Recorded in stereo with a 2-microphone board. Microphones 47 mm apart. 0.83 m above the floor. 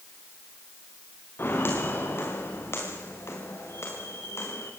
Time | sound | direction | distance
1.4 | footsteps | 55° left (ahead or behind) | 7 m